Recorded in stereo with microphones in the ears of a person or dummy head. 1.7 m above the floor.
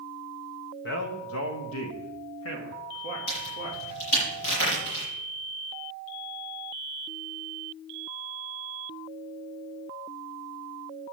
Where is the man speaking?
60° left (ahead or behind), 1.6 m; by 4.0 s 55° left (ahead or behind), 3.5 m.